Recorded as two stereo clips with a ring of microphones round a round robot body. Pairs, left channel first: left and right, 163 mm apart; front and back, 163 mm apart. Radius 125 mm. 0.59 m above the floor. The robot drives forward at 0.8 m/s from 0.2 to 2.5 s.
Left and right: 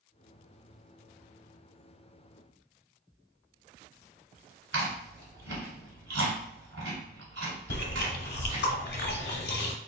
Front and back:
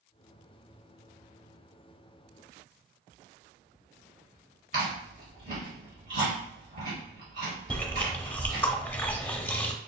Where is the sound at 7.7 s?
80° left, 0.8 m.